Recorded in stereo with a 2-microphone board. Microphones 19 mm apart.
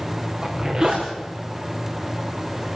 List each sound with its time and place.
0.4 s a zipper: 30° right (ahead or behind), 5 m